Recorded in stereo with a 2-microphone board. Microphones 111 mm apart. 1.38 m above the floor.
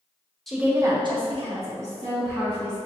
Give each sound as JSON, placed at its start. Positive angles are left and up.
{"t": 0.5, "sound": "a woman speaking", "side_deg": 0, "distance_m": 0.8}